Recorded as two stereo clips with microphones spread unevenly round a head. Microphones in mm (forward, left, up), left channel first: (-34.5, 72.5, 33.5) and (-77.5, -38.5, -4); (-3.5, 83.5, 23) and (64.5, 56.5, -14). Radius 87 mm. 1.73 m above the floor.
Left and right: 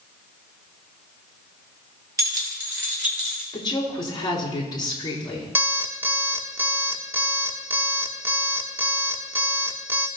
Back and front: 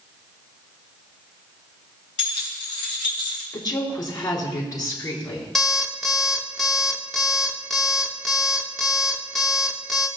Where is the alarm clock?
160° left, 1.0 m.